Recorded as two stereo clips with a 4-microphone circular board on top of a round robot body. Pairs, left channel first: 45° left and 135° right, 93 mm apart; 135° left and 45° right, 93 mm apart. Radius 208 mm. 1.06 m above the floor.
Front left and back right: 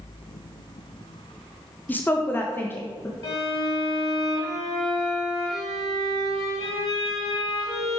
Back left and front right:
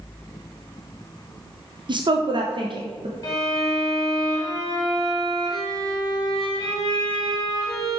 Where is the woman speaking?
25° right, 0.9 m; by 3.1 s 20° right, 1.5 m.